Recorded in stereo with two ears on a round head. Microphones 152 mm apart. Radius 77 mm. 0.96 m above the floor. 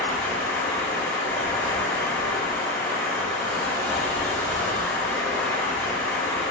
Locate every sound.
0.0 s running water: 10° left (ahead or behind), 1.9 m